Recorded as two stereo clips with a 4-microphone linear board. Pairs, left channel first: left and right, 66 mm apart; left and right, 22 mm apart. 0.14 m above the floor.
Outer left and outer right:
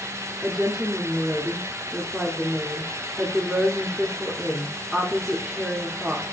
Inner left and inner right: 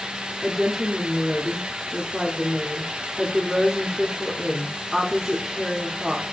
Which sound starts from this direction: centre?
A woman speaking, at 0.4 s.